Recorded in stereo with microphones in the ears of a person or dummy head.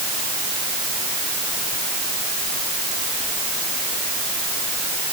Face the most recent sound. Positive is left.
No sound to turn to.